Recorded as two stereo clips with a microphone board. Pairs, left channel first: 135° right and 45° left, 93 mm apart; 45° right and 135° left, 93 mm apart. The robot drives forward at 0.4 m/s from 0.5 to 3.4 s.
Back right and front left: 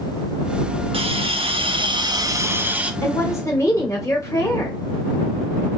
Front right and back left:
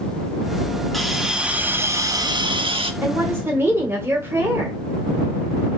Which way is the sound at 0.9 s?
40° left.